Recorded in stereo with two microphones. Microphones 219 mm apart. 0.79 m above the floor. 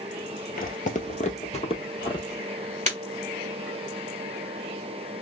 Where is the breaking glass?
35° right (ahead or behind), 1.5 m.